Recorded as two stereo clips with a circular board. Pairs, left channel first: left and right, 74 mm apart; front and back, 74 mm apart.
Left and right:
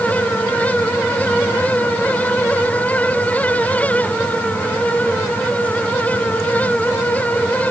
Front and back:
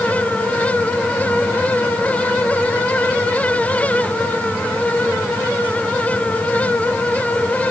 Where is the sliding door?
No sliding door in this recording.